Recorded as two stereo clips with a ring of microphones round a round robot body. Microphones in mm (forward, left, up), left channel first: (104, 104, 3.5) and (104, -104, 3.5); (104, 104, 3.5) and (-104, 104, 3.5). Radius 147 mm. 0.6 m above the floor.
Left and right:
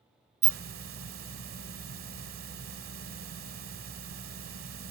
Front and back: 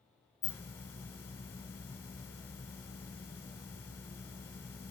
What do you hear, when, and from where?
0.4 s a hiss: 80° right, 1.0 m